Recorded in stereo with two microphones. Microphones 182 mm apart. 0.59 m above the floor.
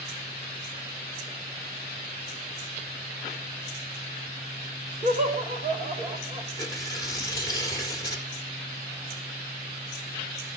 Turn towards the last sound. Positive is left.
turn(degrees=20)  # may be behind; listen again after turning